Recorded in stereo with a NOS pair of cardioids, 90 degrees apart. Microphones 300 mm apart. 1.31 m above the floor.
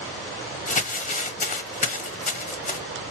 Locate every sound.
0.7 s crumpling: 25° left, 0.9 m